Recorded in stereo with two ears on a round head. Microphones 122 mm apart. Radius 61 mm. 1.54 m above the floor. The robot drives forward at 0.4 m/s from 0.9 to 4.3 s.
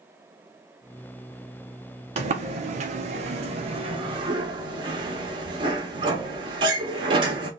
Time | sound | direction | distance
2.2 | a sliding door | 45° right (ahead or behind) | 0.7 m